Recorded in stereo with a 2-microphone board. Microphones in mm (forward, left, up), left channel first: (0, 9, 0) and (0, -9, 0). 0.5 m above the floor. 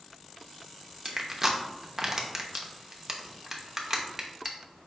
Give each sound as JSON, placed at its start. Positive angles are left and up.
{"t": 1.1, "sound": "crushing", "side_deg": -15, "distance_m": 0.7}